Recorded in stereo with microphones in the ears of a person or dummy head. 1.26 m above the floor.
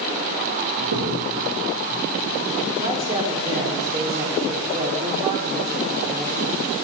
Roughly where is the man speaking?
Right.